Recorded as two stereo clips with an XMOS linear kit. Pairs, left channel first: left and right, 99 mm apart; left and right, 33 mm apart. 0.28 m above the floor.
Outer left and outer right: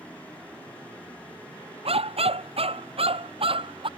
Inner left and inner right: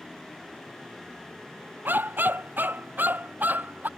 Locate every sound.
1.9 s a dog barking: 80° right; by 3.9 s 65° right (ahead or behind)